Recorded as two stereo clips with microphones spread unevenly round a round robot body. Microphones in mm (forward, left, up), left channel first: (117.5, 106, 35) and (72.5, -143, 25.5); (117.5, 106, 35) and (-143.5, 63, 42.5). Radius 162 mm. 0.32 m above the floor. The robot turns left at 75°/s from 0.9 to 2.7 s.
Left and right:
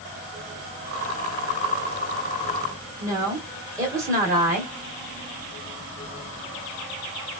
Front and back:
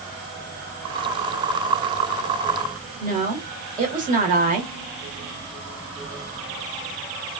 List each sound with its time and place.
3.0 s a woman speaking: 160° right, 1.2 m